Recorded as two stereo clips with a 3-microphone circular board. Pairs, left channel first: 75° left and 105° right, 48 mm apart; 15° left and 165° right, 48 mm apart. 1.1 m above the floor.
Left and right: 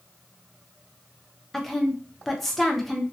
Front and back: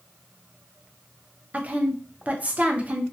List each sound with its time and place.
1.5 s a woman speaking: 160° left, 0.5 m